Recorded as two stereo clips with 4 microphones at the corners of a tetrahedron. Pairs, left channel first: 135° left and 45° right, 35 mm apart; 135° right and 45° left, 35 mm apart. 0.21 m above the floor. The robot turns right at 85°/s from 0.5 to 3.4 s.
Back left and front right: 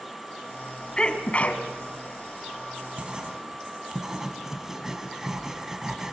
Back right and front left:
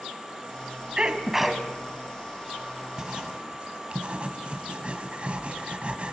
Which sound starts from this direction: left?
A sneeze, at 1.0 s.